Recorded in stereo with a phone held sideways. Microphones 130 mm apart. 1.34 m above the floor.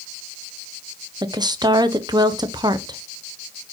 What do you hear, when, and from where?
1.2 s a woman speaking: 30° right (ahead or behind), 0.7 m